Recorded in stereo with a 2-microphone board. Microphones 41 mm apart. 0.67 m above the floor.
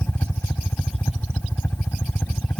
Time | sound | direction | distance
0.0 | a helicopter | 75° left (ahead or behind) | ?